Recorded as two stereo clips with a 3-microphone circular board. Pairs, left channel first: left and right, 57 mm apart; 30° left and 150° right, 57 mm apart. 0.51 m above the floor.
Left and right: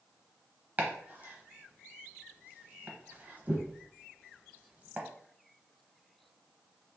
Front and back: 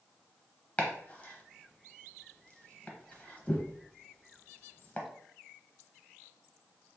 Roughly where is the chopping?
Ahead right.